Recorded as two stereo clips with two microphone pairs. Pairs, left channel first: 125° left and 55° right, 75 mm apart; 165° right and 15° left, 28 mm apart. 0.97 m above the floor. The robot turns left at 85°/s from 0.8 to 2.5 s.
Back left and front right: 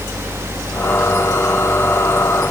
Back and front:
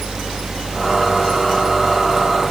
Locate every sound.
Only background noise.